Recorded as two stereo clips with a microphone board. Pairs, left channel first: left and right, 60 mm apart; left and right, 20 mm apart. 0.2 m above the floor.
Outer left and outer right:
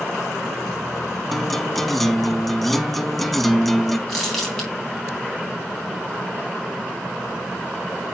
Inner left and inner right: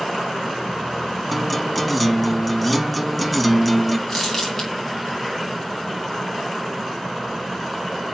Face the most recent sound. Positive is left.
turn(degrees=10)  # may be behind; listen again after turning